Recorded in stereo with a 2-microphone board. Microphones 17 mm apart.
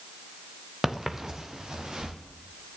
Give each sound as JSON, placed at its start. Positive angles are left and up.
{"t": 0.8, "sound": "footsteps", "side_deg": -25, "distance_m": 1.4}